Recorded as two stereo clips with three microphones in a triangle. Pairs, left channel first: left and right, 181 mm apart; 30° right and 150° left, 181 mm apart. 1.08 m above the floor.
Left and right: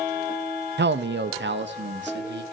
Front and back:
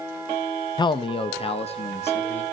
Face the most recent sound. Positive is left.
turn(degrees=-85)